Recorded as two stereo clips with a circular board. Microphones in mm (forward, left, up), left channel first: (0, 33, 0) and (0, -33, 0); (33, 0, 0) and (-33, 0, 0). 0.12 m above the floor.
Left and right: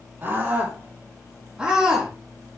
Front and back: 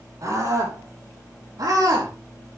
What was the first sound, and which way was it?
A scream, 150° right.